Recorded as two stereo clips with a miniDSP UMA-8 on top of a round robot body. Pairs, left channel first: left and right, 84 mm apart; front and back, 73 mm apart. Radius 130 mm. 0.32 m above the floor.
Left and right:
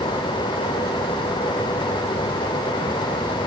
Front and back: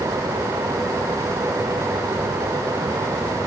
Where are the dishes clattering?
No dishes clattering in this recording.